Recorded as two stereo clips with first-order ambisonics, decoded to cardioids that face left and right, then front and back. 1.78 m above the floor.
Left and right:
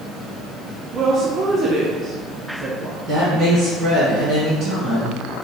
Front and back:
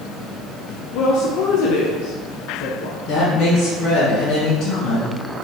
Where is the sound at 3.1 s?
40° right, 1.7 m.